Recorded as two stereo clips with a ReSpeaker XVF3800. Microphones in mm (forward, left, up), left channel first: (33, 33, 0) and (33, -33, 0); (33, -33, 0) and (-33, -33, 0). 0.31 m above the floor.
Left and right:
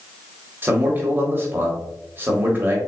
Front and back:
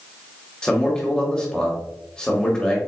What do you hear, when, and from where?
0.6 s a man speaking: 70° right, 1.1 m